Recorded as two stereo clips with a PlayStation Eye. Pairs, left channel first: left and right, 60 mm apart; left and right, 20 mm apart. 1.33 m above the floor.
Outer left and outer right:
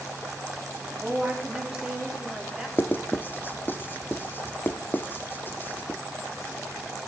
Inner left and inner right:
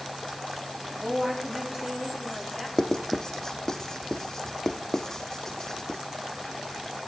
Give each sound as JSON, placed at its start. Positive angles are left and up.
{"t": 1.0, "sound": "a woman speaking", "side_deg": -20, "distance_m": 3.5}
{"t": 2.8, "sound": "writing", "side_deg": 30, "distance_m": 1.0}